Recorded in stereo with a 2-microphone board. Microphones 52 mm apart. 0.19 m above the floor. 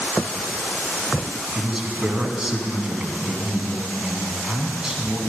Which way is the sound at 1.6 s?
15° right (ahead or behind).